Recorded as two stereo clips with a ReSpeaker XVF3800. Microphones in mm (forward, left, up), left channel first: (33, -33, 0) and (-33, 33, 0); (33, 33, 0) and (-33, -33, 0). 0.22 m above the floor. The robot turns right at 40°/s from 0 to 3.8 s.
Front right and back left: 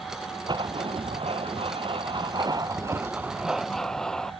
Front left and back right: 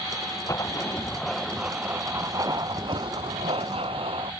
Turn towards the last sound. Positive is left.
turn(degrees=-130)